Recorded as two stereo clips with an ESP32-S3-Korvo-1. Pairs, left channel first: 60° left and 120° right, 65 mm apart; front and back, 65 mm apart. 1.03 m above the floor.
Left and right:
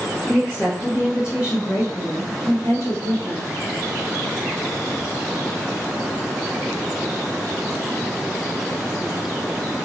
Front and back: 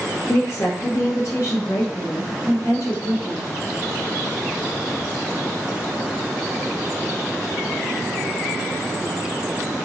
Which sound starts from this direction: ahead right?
A woman speaking, at 0.3 s.